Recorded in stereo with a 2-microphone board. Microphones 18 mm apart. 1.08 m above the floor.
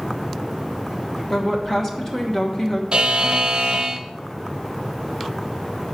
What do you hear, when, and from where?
1.3 s a woman speaking: 25° left (ahead or behind), 1.1 m
2.9 s a buzzer: 55° right (ahead or behind), 0.7 m